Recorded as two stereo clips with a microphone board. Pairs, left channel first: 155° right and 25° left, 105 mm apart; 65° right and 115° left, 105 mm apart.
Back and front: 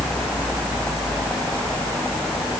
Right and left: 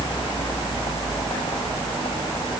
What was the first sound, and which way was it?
Only background noise.